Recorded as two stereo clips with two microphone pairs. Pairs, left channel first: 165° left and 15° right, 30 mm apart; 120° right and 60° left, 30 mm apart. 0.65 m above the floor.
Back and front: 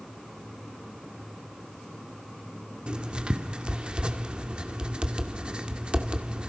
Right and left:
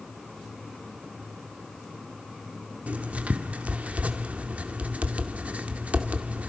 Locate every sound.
2.9 s writing: 35° left, 2 m